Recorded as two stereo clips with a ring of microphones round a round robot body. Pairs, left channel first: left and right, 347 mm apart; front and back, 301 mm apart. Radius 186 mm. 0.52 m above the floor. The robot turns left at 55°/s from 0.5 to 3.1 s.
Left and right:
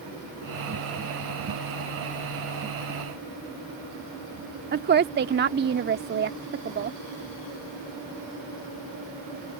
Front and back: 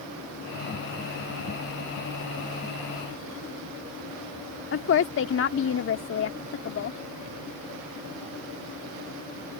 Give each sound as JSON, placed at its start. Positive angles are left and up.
{"t": 4.7, "sound": "a woman speaking", "azimuth_deg": -35}